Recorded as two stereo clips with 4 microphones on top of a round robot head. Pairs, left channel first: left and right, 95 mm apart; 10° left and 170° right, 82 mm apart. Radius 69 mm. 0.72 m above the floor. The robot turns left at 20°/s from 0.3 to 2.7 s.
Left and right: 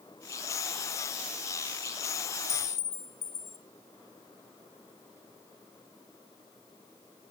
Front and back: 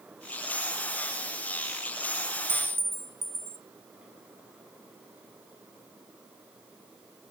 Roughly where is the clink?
Behind left.